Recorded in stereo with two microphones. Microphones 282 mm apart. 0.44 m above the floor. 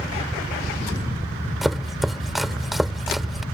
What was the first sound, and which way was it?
Chopping, centre (ahead or behind).